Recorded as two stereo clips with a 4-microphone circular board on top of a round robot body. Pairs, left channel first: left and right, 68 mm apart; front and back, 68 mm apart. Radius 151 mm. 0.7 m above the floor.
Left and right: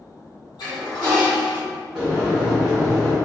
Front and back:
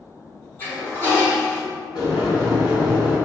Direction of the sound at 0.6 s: 60° left.